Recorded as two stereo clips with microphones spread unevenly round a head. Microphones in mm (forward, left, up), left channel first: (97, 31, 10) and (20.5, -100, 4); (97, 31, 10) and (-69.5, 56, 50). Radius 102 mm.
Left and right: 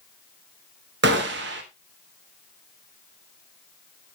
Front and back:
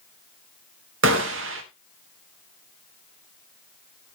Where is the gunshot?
155° right, 1.2 m.